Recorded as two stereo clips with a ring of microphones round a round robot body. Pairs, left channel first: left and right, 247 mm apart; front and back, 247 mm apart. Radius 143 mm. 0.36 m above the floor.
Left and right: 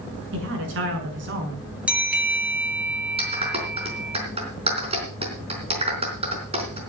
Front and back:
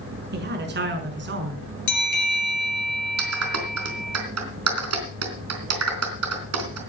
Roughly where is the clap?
Behind.